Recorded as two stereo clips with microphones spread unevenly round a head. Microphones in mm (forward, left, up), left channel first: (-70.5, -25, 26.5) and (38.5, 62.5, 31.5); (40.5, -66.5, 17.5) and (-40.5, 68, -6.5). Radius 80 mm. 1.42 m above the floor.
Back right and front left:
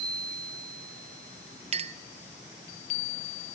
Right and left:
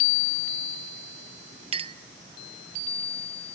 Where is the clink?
65° left, 0.7 m.